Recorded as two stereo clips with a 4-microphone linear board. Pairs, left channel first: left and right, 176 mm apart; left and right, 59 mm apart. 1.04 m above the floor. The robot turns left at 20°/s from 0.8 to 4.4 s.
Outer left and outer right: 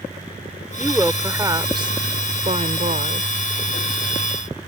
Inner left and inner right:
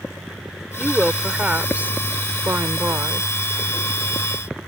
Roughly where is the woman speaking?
Ahead.